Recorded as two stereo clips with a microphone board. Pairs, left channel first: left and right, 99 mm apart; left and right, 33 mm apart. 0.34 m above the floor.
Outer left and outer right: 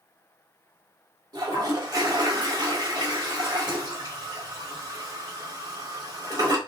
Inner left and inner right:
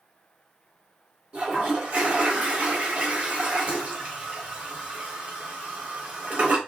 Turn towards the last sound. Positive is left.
turn(degrees=-40)  # may be behind; listen again after turning